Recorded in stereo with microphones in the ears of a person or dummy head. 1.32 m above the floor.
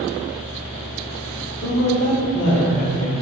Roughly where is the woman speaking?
Left.